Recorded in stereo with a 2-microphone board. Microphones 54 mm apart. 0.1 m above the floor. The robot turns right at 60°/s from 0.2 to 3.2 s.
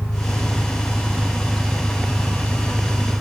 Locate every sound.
0.0 s an engine running: 115° left; by 3.2 s 65° right